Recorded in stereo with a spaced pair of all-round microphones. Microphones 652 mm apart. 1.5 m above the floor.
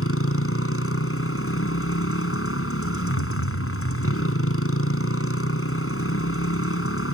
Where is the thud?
45° left (ahead or behind).